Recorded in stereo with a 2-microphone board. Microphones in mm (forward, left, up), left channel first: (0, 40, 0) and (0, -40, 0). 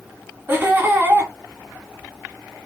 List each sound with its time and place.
0.5 s laughter: 25° right (ahead or behind), 1.4 m